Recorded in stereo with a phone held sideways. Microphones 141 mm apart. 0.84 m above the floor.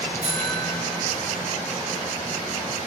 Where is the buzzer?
55° right (ahead or behind), 4 m.